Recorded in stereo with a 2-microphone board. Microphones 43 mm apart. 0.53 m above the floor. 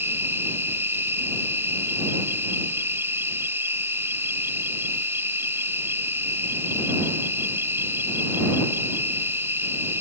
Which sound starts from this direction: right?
An insect, at 0.0 s.